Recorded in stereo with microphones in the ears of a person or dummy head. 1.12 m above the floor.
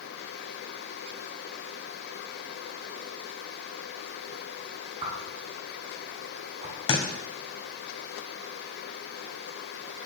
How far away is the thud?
About 2 m.